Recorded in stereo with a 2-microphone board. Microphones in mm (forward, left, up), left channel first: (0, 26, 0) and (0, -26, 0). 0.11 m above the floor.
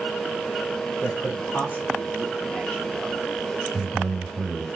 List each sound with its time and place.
1.0 s a man speaking: 40° left (ahead or behind), 4 m; by 3.2 s 15° left (ahead or behind), 5 m
3.7 s a man speaking: 15° right (ahead or behind), 4 m